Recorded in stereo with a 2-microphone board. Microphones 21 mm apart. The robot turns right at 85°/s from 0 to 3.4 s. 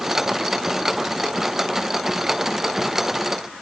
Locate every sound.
Only background noise.